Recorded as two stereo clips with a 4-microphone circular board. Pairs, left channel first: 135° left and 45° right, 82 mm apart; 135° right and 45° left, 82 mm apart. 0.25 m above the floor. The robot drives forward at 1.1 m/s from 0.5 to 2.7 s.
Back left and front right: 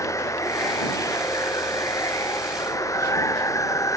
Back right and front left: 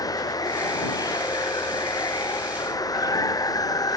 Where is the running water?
175° right.